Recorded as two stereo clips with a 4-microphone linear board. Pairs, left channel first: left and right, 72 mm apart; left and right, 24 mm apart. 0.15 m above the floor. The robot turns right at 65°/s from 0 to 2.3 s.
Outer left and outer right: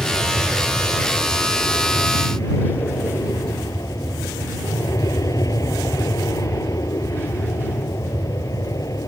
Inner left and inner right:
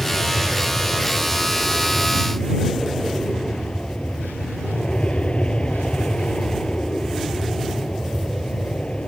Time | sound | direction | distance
0.0 | an aircraft | 30° right | ?